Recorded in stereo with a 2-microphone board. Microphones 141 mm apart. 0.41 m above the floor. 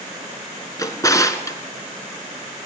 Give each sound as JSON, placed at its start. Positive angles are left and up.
{"t": 0.8, "sound": "a drawer", "side_deg": 25, "distance_m": 1.9}